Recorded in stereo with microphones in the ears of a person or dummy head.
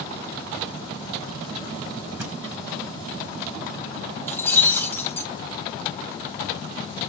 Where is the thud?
10° right (ahead or behind), 4.5 m.